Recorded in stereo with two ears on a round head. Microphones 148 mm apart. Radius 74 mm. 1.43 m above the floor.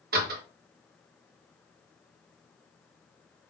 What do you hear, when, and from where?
0.1 s a door slam: 60° right (ahead or behind), 1.1 m